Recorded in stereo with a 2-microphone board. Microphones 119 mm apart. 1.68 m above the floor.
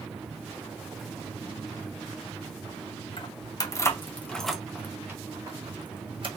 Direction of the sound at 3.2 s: 40° left (ahead or behind).